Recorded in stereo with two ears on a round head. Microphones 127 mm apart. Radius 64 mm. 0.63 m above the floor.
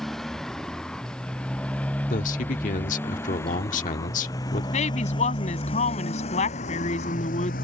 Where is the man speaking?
60° left (ahead or behind).